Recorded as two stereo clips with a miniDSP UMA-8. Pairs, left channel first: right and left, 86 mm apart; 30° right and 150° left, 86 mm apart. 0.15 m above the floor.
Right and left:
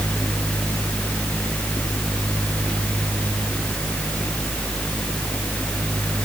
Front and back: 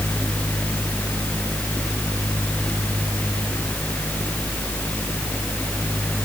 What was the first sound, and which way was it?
Only background noise.